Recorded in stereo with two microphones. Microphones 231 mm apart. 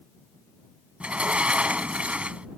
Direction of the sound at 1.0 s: 5° right (ahead or behind).